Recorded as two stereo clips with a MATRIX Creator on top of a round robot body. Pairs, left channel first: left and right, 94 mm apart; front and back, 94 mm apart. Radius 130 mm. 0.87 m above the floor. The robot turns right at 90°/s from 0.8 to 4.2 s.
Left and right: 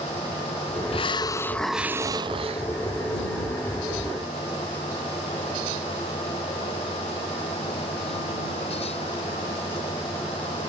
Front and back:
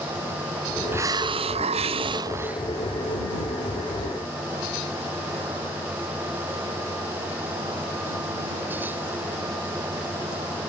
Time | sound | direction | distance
0.9 | a hiss | 110° left | ?